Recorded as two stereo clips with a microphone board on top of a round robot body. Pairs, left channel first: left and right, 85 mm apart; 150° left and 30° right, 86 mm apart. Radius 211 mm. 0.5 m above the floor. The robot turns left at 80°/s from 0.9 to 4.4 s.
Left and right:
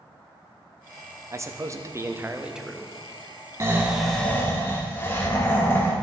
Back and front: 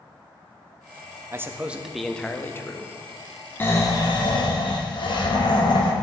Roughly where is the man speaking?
Ahead right.